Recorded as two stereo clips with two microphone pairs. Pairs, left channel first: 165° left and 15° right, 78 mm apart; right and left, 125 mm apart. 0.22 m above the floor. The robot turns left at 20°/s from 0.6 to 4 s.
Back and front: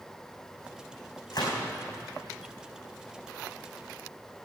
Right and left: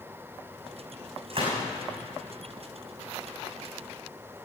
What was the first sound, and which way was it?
A gunshot, 135° left.